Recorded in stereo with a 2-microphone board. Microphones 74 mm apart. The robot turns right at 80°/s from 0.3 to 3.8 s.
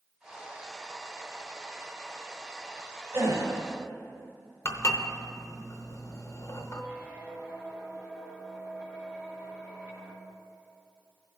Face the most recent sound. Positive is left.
turn(degrees=-20)  # may be behind; listen again after turning